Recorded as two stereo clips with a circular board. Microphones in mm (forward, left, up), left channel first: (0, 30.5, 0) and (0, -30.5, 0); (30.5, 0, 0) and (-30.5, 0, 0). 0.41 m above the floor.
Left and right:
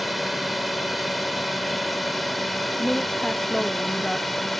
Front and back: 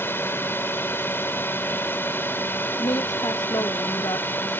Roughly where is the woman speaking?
Ahead.